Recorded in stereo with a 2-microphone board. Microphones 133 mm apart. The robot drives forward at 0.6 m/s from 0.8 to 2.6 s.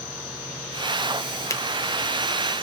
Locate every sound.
1.5 s a finger snap: 20° left (ahead or behind), 0.8 m